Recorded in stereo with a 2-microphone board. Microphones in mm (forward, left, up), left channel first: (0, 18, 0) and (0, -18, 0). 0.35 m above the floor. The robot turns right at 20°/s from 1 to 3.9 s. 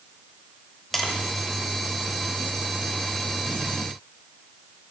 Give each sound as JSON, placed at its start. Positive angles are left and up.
{"t": 0.9, "sound": "tapping", "side_deg": 0, "distance_m": 0.7}